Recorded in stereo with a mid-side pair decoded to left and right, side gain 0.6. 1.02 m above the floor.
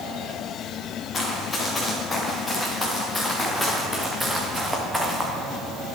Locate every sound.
1.1 s running footsteps: 30° left, 5 m; by 5.3 s 5° right, 4 m